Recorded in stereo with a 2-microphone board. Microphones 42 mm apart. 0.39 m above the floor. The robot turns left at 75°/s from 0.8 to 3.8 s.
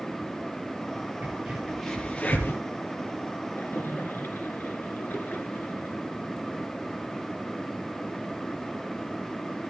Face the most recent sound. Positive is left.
turn(degrees=55)  # may be behind; listen again after turning